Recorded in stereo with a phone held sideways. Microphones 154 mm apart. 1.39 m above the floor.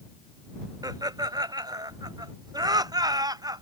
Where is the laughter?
25° right (ahead or behind).